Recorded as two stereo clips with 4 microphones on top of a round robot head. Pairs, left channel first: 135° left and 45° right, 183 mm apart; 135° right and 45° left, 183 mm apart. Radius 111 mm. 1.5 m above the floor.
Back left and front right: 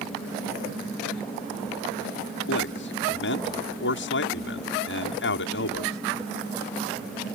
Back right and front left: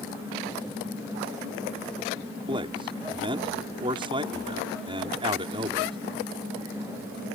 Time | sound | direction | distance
2.5 | a man speaking | 110° left | ?